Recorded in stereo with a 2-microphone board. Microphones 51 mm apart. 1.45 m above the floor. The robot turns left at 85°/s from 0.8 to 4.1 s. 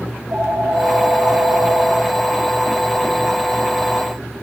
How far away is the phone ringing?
About 5 m.